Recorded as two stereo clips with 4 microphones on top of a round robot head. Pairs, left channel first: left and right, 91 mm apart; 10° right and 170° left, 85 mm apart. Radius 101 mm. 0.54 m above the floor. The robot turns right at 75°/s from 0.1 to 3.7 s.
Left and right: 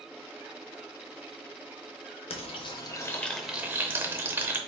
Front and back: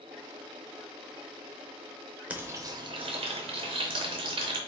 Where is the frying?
95° left, 0.6 m; by 4.6 s 160° right, 0.6 m.